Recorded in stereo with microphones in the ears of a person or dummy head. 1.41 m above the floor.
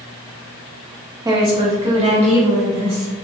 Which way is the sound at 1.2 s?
20° right (ahead or behind).